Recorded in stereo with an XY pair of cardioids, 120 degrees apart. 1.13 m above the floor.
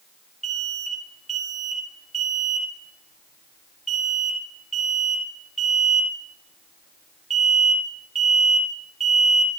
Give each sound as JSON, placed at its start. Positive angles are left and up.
{"t": 0.4, "sound": "an alarm", "azimuth_deg": -20, "distance_m": 1.9}